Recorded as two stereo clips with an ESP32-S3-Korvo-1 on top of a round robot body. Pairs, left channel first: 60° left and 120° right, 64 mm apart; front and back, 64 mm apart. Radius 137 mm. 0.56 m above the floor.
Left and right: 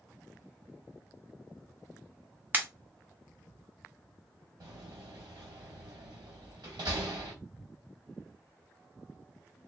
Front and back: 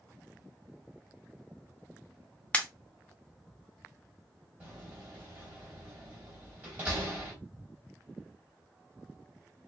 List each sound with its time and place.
2.5 s a pop: 65° right, 1.0 m
4.6 s a door slam: 115° right, 2.5 m